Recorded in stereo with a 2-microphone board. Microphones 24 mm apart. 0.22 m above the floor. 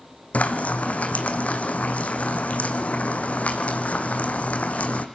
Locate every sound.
0.3 s frying: 65° left (ahead or behind), 2.0 m